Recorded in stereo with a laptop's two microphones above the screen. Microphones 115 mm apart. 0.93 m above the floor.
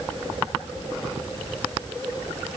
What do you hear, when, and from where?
Only background noise.